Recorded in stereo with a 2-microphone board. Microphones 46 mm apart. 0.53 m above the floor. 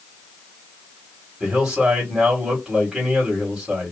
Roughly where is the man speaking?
Centre.